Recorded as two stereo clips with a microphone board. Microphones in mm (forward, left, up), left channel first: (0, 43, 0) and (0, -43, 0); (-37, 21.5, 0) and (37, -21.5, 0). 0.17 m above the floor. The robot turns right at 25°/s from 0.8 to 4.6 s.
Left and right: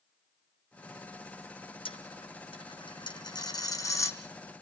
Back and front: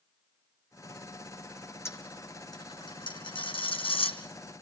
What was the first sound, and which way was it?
A dropped coin, 90° left.